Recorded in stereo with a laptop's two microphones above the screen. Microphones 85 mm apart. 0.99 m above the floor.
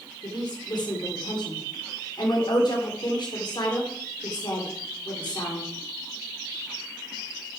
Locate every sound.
0.2 s a woman speaking: 60° left (ahead or behind), 3 m